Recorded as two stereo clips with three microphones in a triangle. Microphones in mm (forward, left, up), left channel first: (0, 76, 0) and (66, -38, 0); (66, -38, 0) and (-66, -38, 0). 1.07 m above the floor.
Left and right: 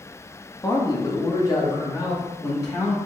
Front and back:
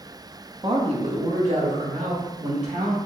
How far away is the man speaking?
About 0.8 m.